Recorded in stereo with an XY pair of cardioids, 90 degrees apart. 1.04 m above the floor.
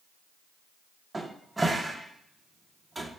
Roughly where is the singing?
I don't hear singing.